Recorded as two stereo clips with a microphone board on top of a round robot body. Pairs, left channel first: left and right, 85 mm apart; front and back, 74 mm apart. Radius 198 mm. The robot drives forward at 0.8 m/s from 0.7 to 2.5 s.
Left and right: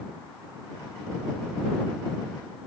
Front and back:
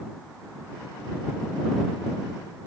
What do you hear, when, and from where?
Only background noise.